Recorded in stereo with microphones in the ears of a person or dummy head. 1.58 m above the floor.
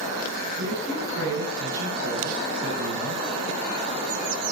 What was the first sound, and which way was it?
A man speaking, 85° right.